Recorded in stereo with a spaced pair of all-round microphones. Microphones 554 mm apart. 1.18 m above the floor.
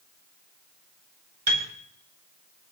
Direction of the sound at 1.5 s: 55° right (ahead or behind).